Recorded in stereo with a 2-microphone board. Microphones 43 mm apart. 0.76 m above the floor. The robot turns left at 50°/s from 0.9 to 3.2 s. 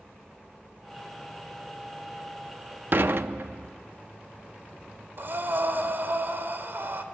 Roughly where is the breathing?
Right.